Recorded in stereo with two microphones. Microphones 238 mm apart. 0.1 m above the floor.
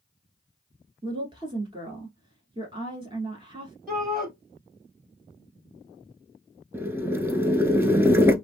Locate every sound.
1.0 s a woman speaking: 20° right (ahead or behind), 1.3 m
3.9 s a shout: 35° right (ahead or behind), 1.6 m
6.7 s boiling: 10° right (ahead or behind), 0.5 m